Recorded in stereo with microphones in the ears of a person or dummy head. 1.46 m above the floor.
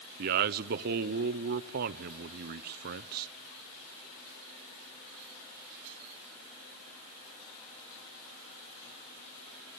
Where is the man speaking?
45° right (ahead or behind), 0.5 m.